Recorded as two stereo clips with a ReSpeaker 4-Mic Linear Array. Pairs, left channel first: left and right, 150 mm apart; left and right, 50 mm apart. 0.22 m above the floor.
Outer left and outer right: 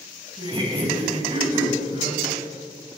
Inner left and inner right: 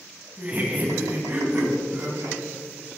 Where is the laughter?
30° right (ahead or behind), 1.6 m; by 2.4 s 40° right (ahead or behind), 2.5 m.